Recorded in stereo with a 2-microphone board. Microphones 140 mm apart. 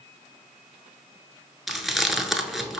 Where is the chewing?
Centre (ahead or behind), 0.6 m.